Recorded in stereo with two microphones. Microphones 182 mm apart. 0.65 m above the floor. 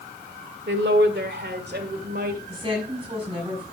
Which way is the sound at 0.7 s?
75° right (ahead or behind).